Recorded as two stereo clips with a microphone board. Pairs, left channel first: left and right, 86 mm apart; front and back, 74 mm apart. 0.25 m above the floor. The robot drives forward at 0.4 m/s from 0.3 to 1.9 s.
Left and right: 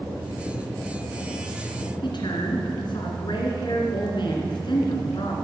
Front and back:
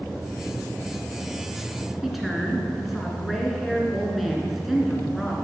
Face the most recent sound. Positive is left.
turn(degrees=90)